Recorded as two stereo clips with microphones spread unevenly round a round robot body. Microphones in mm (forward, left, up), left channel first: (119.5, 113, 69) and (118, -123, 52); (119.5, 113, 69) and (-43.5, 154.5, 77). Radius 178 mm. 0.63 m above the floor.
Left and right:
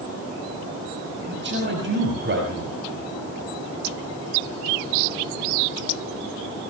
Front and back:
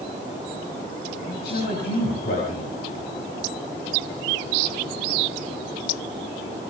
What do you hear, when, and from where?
1.3 s a man speaking: 55° right, 5.5 m